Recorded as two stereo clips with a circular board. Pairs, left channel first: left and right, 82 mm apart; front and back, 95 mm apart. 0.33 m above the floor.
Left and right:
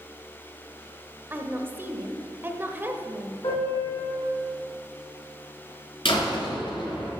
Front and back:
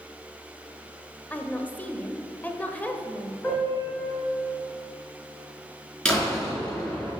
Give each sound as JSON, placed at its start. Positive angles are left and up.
{"t": 1.3, "sound": "a woman speaking", "azimuth_deg": -55, "distance_m": 0.9}
{"t": 3.4, "sound": "a piano", "azimuth_deg": 80, "distance_m": 3.5}
{"t": 6.0, "sound": "a door slam", "azimuth_deg": 80, "distance_m": 3.5}